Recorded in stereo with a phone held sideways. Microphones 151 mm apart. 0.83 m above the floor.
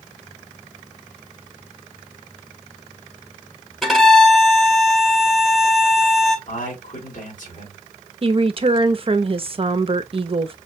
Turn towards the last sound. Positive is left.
turn(degrees=-40)  # may be behind; listen again after turning